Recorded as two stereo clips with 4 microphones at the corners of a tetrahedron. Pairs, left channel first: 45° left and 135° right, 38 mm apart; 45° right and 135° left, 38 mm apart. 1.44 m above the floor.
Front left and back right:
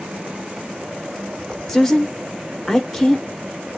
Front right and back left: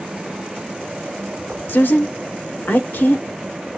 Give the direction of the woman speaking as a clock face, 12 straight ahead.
1 o'clock.